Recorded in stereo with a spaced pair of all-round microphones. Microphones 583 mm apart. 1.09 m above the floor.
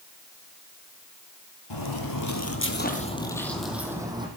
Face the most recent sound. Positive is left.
turn(degrees=-10)  # may be behind; listen again after turning